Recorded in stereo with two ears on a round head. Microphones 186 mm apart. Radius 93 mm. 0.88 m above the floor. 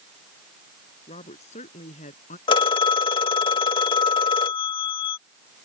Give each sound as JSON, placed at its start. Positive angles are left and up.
{"t": 1.1, "sound": "a woman speaking", "side_deg": 30}
{"t": 2.5, "sound": "a phone ringing", "side_deg": 25}